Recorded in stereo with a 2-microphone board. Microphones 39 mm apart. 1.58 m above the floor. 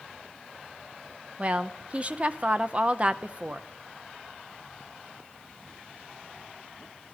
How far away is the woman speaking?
About 0.8 m.